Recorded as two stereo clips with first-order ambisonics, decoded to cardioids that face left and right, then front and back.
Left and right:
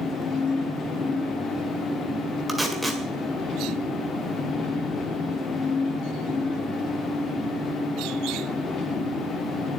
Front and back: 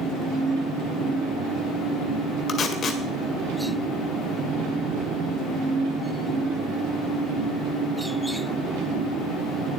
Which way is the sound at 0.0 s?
150° left.